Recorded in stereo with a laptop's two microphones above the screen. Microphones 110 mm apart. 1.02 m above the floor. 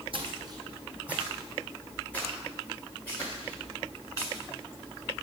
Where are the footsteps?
55° right (ahead or behind), 1.8 m; by 4.4 s 30° left (ahead or behind), 6.5 m.